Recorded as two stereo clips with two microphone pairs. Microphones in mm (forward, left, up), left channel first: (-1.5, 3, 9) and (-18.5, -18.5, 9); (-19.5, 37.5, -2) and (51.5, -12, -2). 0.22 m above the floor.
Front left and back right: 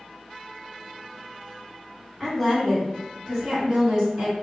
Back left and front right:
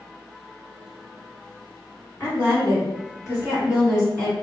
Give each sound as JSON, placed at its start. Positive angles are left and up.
{"t": 2.2, "sound": "a woman speaking", "azimuth_deg": 130, "distance_m": 1.9}